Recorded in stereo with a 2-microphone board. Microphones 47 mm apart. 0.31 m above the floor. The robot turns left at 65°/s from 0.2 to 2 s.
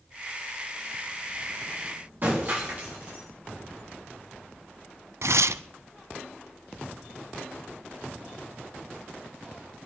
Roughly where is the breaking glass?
Right.